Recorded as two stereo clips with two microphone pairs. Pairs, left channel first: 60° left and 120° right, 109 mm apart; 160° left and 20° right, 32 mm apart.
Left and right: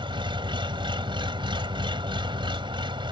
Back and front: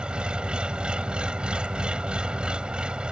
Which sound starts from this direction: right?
An engine running, at 0.0 s.